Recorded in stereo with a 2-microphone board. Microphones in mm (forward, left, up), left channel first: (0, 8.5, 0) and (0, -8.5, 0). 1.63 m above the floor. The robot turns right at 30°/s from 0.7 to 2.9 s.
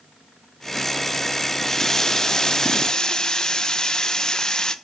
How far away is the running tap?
About 0.9 m.